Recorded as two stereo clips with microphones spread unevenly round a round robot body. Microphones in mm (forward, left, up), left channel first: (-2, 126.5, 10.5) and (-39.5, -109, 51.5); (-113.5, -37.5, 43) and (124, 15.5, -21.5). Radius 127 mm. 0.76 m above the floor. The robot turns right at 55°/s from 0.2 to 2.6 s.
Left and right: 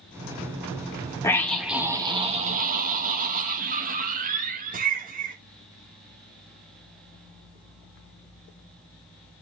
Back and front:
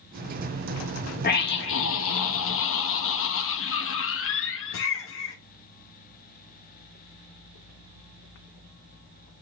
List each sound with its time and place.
1.2 s a scream: 140° left, 1.0 m; by 5.4 s 145° right, 1.0 m